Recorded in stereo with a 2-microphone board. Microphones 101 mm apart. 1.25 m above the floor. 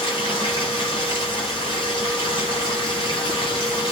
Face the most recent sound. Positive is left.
turn(degrees=50)  # may be behind; listen again after turning